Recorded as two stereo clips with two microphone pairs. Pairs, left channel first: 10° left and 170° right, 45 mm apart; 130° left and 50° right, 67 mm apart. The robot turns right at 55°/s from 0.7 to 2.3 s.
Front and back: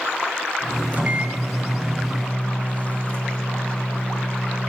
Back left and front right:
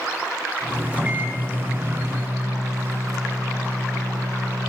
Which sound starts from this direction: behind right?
A microwave, at 0.9 s.